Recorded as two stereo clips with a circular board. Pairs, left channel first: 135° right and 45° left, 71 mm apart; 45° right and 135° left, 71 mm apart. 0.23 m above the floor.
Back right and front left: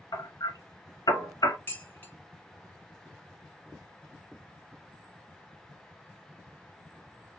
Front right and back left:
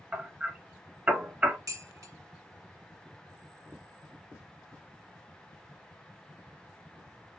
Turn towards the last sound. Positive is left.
turn(degrees=165)